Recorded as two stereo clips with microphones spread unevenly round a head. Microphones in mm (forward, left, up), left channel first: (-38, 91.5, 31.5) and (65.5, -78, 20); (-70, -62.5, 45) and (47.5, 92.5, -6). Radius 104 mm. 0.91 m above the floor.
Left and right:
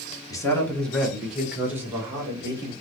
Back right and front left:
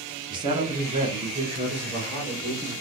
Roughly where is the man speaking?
Ahead left.